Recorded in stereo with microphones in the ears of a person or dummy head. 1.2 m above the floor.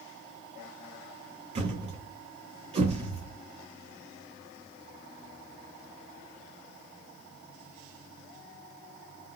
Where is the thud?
30° right (ahead or behind), 1.1 m.